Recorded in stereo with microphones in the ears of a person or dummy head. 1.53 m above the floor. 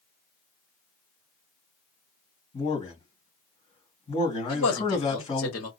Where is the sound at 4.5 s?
80° left, 1.5 m.